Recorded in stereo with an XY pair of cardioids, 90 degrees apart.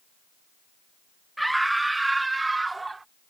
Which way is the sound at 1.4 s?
5° right.